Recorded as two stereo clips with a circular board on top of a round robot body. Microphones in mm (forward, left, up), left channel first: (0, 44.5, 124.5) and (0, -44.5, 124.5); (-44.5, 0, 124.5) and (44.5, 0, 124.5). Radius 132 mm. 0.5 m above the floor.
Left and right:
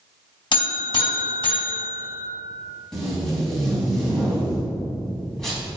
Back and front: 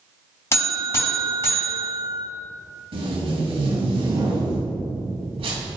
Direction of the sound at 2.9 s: 5° left.